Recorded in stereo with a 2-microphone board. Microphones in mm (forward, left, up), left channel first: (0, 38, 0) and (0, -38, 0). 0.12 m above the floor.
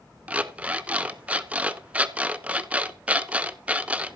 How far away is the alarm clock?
About 0.6 m.